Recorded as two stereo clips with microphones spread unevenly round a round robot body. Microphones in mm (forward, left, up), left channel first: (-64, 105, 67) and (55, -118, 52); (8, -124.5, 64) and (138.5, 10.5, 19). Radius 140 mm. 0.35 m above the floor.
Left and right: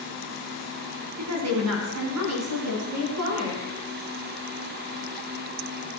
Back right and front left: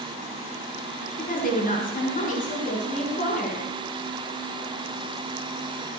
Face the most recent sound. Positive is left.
turn(degrees=-80)